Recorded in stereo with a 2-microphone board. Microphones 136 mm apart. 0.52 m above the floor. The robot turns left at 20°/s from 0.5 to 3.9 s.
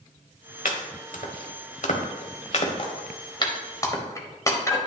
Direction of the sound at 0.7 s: 80° left.